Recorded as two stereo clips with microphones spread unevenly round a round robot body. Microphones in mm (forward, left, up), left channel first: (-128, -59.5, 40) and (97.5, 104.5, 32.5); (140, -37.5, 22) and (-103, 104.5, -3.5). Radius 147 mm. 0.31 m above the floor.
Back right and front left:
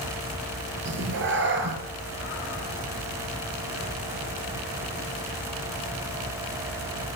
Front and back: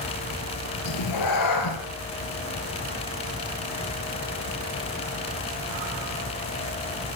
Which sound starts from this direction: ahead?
A cat meowing, at 0.8 s.